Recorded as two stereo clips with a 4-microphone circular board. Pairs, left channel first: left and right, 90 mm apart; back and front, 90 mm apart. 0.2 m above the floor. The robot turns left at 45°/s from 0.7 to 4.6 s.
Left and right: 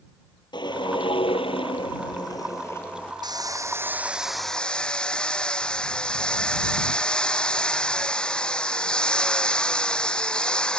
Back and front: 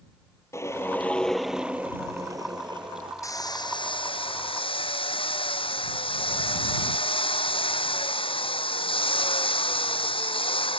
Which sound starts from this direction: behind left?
A whoosh, at 0.5 s.